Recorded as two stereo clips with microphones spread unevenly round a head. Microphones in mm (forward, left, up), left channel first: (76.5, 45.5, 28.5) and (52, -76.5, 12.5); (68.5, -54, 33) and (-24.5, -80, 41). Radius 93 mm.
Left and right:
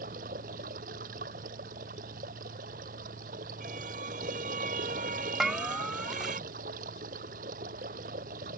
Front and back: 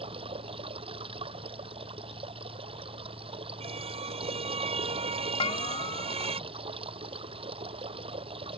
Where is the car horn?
150° right.